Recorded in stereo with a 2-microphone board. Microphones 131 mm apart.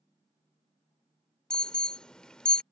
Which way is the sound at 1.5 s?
5° left (ahead or behind).